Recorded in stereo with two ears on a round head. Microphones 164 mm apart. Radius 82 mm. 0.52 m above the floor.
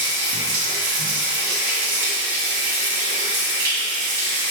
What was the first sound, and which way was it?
Running water, 55° right (ahead or behind).